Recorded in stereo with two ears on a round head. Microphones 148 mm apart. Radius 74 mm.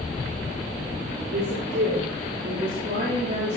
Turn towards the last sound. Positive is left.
turn(degrees=-35)  # may be behind; listen again after turning